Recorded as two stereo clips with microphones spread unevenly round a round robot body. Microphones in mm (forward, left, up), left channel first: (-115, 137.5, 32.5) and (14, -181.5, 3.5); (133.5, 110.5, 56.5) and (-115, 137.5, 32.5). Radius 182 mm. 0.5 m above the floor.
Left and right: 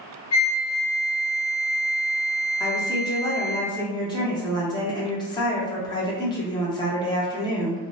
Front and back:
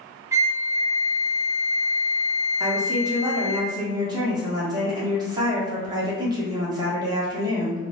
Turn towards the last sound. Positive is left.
turn(degrees=180)